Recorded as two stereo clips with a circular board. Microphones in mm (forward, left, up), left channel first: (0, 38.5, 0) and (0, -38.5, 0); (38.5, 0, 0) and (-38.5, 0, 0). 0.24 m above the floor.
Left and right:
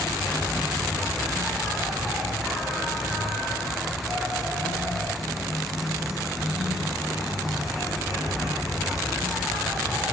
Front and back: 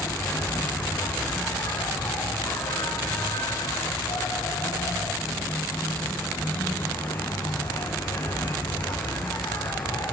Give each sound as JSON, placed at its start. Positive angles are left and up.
{"t": 0.0, "sound": "an insect", "azimuth_deg": -5, "distance_m": 6.5}